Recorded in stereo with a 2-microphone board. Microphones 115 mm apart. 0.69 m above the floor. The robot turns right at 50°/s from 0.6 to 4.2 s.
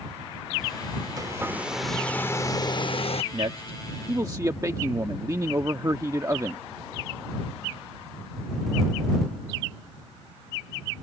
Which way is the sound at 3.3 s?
80° right.